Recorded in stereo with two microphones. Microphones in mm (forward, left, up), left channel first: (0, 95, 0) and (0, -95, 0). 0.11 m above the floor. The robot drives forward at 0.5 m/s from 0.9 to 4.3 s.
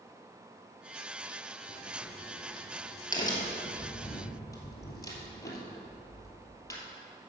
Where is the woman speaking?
I don't hear a woman speaking.